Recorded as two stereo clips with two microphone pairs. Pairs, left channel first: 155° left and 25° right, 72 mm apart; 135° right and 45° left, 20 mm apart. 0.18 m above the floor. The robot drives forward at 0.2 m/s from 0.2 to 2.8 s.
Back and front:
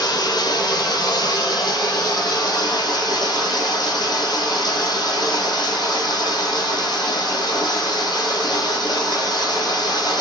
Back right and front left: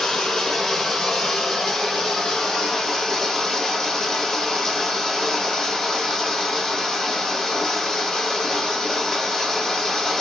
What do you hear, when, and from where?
0.0 s running water: 170° left, 1.0 m